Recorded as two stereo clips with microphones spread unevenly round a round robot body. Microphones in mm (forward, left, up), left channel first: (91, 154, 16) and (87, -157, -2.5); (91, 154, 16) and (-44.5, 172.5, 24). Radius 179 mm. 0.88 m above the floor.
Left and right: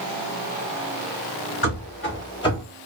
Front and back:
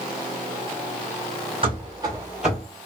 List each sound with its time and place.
1.6 s running footsteps: 130° left, 1.7 m; by 2.6 s 25° left, 0.8 m